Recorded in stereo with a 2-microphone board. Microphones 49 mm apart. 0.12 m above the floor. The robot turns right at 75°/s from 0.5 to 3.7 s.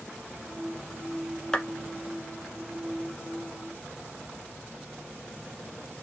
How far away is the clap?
About 1.3 m.